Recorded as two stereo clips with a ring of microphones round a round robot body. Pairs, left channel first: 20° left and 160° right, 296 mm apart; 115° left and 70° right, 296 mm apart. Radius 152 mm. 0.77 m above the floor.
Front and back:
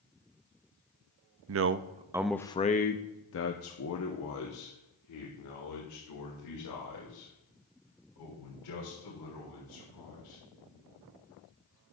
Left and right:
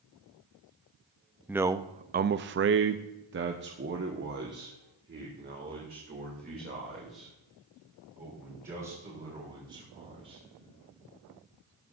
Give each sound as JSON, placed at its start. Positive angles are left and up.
{"t": 1.5, "sound": "a man speaking", "azimuth_deg": -150, "distance_m": 0.6}